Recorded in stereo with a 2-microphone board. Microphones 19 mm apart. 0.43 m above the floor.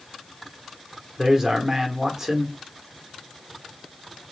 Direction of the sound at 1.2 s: 20° right (ahead or behind).